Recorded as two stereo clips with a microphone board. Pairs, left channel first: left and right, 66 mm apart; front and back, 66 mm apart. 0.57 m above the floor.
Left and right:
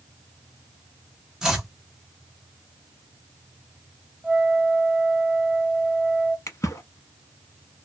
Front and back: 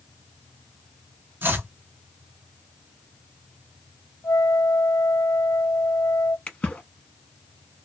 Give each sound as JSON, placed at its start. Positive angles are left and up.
{"t": 1.4, "sound": "chopping", "azimuth_deg": -160, "distance_m": 0.9}
{"t": 4.2, "sound": "a flute", "azimuth_deg": -15, "distance_m": 0.8}
{"t": 6.5, "sound": "a splash", "azimuth_deg": 65, "distance_m": 0.7}